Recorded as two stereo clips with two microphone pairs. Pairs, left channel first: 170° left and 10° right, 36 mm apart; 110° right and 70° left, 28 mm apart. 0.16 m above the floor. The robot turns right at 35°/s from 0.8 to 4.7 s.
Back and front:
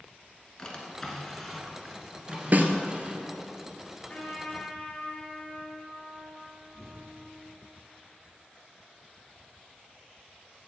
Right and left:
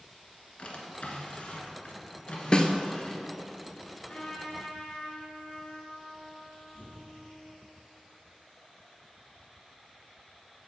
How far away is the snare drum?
About 0.6 m.